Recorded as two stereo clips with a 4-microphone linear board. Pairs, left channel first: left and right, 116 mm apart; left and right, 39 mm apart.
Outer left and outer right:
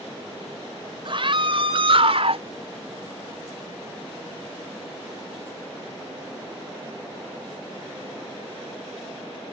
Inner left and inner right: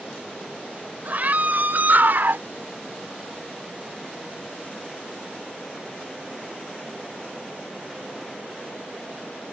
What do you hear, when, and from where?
1.1 s a scream: 50° right (ahead or behind); by 2.5 s 60° right (ahead or behind)